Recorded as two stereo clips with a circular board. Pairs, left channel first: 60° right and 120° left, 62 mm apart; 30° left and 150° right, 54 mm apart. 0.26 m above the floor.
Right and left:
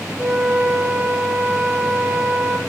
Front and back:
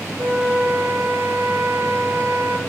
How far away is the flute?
About 0.6 m.